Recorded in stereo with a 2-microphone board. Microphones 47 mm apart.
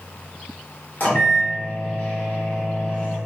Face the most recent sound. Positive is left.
turn(degrees=45)  # may be behind; listen again after turning